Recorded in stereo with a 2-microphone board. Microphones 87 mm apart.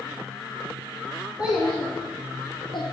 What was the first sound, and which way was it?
A child speaking, 15° right (ahead or behind).